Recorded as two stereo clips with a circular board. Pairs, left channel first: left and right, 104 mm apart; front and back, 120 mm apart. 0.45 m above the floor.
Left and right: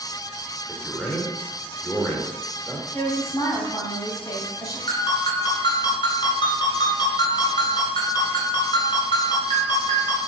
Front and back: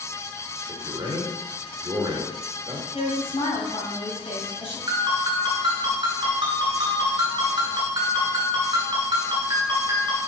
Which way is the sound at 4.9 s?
130° left.